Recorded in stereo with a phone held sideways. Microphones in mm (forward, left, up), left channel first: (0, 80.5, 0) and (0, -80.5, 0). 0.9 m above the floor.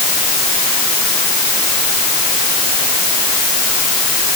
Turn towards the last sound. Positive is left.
No sound to turn to.